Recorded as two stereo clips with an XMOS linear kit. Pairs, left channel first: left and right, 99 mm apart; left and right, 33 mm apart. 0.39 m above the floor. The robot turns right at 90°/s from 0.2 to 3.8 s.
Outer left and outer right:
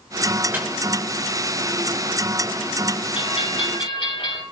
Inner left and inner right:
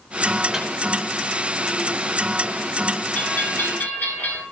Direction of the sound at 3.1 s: 60° left.